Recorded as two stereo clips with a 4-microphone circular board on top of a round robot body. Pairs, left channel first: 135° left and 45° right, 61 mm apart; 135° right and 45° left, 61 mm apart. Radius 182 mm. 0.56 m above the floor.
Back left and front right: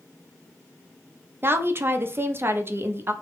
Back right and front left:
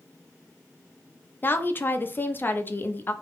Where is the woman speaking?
85° right, 1.0 m.